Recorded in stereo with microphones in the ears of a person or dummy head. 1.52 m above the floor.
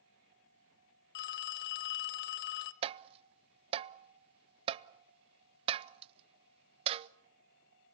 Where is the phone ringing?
60° left (ahead or behind), 0.9 m.